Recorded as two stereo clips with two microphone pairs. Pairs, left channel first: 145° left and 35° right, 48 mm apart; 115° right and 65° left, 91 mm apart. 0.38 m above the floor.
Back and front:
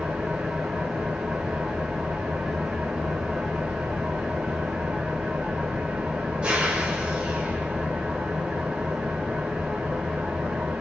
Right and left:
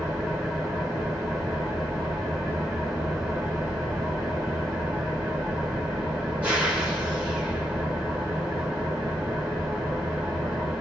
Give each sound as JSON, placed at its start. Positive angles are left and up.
{"t": 0.0, "sound": "an engine running", "azimuth_deg": 5, "distance_m": 1.3}